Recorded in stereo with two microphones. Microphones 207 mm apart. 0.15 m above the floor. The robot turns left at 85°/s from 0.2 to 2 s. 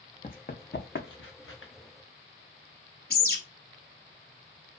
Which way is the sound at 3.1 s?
45° left (ahead or behind).